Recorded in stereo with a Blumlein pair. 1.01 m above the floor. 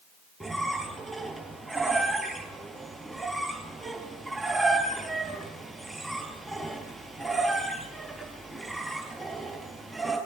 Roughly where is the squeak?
Ahead.